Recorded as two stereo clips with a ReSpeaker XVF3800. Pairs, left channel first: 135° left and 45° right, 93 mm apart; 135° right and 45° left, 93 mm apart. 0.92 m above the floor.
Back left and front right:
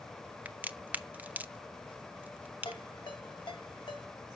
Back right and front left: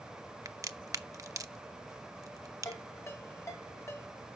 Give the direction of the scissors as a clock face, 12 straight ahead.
No scissors in this recording.